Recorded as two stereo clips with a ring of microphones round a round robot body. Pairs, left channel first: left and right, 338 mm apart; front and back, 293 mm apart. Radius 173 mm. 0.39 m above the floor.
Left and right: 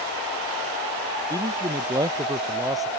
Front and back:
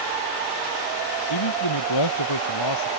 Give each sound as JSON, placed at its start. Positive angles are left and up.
{"t": 1.3, "sound": "a man speaking", "azimuth_deg": -10}